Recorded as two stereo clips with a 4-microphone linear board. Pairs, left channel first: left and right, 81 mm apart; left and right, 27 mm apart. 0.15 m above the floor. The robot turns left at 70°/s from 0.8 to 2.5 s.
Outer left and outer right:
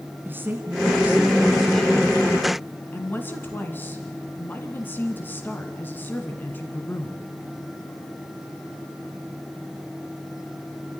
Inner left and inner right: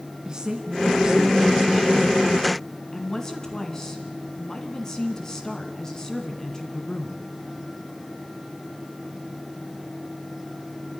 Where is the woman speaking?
25° right (ahead or behind), 1.5 m; by 7.2 s 25° left (ahead or behind), 1.5 m.